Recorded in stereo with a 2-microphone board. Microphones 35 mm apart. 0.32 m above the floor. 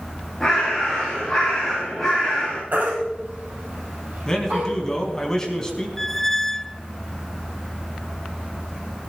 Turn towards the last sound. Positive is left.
turn(degrees=10)  # may be behind; listen again after turning